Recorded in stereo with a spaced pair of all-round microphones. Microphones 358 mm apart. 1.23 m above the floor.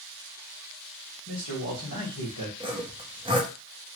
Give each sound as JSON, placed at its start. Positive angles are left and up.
{"t": 1.3, "sound": "a man speaking", "side_deg": 60, "distance_m": 1.6}
{"t": 2.6, "sound": "sawing", "side_deg": -15, "distance_m": 0.8}